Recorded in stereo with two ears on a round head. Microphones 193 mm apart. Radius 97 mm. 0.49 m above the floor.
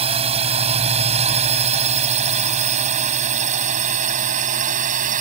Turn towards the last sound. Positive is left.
turn(degrees=-40)  # may be behind; listen again after turning